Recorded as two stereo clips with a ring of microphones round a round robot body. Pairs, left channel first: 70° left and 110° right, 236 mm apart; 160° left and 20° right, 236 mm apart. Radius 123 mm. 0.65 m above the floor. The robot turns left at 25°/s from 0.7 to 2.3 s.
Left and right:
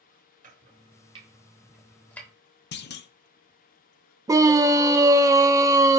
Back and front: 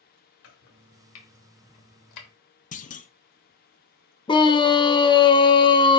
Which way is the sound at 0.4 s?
170° right.